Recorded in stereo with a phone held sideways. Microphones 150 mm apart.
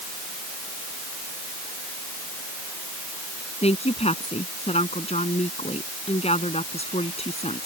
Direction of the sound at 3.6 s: 45° left (ahead or behind).